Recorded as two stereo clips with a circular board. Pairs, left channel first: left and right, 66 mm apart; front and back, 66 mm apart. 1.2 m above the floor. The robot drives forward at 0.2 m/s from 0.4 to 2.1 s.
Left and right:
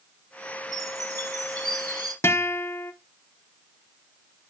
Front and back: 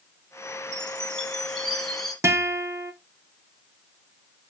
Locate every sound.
0.7 s a chime: 75° right, 1.5 m; by 2.1 s 85° right, 1.4 m
2.2 s a guitar: 135° left, 0.7 m